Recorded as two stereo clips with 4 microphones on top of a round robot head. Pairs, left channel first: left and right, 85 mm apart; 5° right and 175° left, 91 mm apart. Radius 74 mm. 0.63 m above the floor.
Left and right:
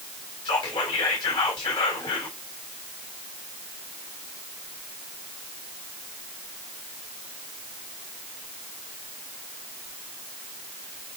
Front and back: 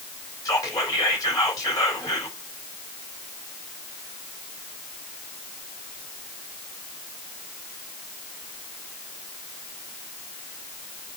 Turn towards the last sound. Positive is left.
turn(degrees=45)